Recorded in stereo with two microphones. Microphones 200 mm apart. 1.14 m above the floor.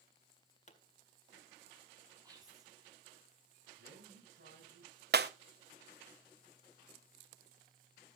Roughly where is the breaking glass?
Right.